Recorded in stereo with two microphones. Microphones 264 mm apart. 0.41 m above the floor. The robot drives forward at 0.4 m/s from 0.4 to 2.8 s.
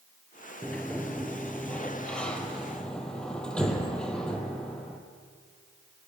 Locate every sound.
0.6 s a sliding door: 5° left (ahead or behind), 1.2 m